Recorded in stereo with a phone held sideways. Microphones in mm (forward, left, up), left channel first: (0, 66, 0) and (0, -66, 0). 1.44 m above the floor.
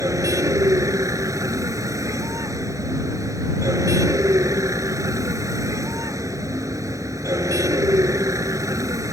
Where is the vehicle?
25° right (ahead or behind).